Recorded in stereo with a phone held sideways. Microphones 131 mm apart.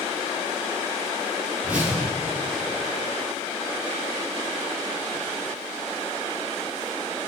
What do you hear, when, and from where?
1.6 s a whoosh: 10° right (ahead or behind), 3 m